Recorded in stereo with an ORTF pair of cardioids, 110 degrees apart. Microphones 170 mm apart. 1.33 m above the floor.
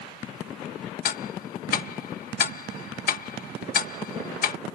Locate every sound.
1.1 s ticking: 55° left